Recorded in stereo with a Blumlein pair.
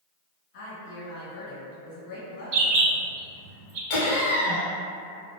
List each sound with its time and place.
0.5 s a woman speaking: 50° left, 1.2 m
2.5 s a bird: 40° right, 0.6 m
3.9 s laughter: 50° left, 0.8 m